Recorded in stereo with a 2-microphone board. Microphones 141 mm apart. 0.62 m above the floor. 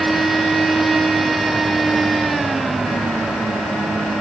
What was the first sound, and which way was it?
Only background noise.